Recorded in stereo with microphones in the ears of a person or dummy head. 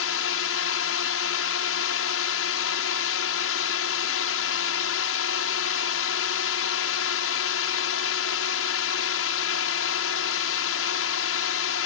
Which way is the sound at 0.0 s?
65° left (ahead or behind).